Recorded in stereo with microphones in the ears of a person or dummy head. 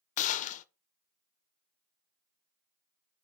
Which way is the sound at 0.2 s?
40° left (ahead or behind).